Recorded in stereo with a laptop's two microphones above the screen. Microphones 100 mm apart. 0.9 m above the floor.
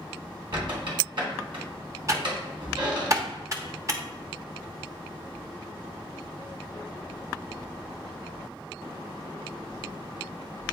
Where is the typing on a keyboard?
35° right (ahead or behind), 1.0 m.